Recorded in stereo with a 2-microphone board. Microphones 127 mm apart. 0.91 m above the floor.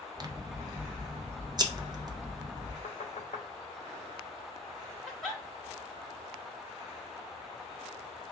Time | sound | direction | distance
0.2 | scissors | 35° right (ahead or behind) | 0.6 m
2.8 | knocking | 60° left (ahead or behind) | 1.0 m
5.1 | a giggle | centre (ahead or behind) | 2 m